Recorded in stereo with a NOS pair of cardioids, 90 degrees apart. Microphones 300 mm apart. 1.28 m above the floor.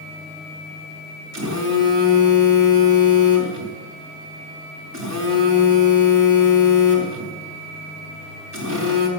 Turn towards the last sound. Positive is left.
turn(degrees=-70)